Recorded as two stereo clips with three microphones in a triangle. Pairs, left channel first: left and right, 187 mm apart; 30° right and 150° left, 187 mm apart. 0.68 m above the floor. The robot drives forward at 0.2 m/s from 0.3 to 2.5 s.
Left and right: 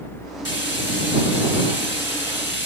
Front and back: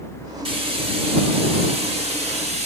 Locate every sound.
0.5 s frying: 90° left, 3.5 m; by 2.7 s 95° left, 3.5 m